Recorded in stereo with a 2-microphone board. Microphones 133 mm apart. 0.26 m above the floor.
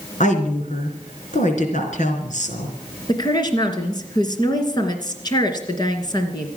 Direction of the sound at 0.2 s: 70° left (ahead or behind).